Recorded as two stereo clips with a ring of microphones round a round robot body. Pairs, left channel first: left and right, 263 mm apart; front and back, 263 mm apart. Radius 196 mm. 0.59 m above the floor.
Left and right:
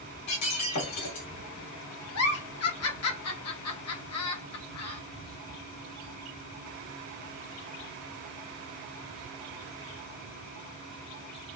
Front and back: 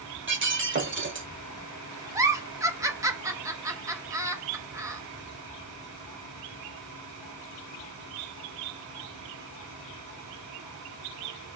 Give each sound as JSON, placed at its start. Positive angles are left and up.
{"t": 0.3, "sound": "breaking glass", "azimuth_deg": 130, "distance_m": 1.8}
{"t": 2.1, "sound": "a giggle", "azimuth_deg": 100, "distance_m": 1.2}